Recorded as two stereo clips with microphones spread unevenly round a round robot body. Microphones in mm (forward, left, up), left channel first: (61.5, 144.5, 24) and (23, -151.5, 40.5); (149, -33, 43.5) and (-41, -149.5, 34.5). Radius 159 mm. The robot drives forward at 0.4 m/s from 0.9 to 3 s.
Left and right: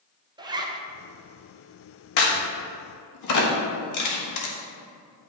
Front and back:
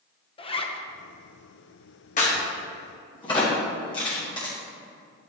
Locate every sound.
0.4 s a zipper: 25° right, 0.9 m
2.2 s a crack: 95° left, 1.6 m; by 4.5 s 105° left, 1.6 m